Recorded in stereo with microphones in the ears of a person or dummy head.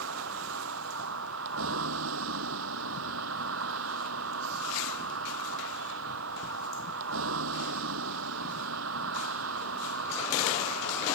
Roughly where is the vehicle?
Right.